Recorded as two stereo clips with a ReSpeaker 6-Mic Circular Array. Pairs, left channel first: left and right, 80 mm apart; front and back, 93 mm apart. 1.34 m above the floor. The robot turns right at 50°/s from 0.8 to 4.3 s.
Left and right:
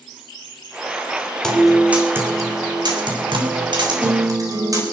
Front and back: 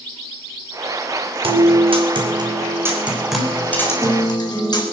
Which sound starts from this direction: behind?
A guitar, at 1.4 s.